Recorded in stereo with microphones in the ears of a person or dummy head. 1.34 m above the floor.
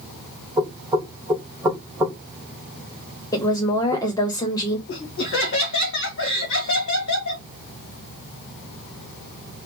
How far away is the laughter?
About 1.4 m.